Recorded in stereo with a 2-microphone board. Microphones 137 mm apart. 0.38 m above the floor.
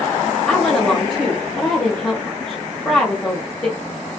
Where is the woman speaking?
5° left (ahead or behind), 1.7 m.